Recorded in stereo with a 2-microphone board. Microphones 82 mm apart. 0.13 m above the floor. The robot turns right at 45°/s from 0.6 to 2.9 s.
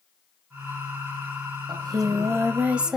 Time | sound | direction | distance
1.7 | singing | 60° right | 2.5 m